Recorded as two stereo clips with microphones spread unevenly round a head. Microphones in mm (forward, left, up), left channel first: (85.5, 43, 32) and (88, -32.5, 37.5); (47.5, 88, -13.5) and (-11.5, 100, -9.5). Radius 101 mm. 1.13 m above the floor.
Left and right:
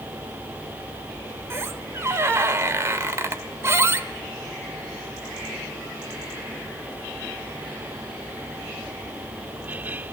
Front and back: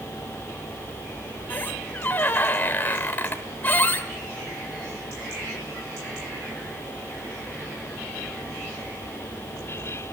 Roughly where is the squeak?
Ahead right.